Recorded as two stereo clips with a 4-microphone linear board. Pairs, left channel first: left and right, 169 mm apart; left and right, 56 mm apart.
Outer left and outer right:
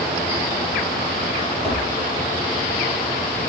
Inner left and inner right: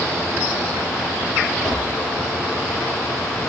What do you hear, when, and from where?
1.6 s tapping: 5° left (ahead or behind), 2.5 m